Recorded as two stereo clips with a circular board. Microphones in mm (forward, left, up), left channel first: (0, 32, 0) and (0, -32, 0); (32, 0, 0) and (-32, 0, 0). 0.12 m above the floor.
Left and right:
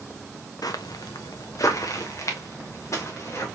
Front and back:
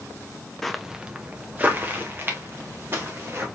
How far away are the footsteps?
About 0.5 m.